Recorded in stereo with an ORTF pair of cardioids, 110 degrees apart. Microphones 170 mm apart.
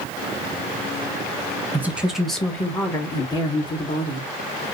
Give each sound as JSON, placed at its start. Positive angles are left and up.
{"t": 1.7, "sound": "a woman speaking", "azimuth_deg": -10, "distance_m": 1.2}